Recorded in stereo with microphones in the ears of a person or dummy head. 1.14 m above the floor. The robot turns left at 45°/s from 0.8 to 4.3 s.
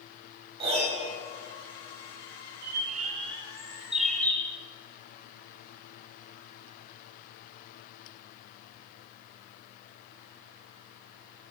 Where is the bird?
110° right, 0.7 m; by 4.6 s 170° left, 0.7 m.